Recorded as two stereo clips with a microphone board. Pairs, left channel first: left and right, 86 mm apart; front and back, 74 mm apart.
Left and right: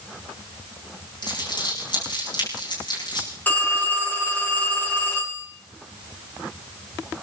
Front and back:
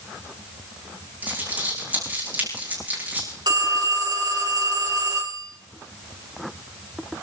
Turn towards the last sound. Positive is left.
turn(degrees=160)